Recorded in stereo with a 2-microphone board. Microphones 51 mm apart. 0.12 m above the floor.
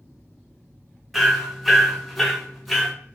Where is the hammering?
Centre (ahead or behind), 0.6 m.